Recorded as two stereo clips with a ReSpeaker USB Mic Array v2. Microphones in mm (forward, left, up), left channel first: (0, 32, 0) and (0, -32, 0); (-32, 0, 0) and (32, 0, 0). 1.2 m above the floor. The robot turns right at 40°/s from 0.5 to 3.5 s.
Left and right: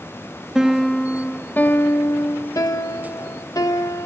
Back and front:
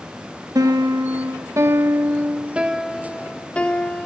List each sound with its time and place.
0.6 s a piano: 10° right, 1.4 m; by 4.1 s 110° left, 1.4 m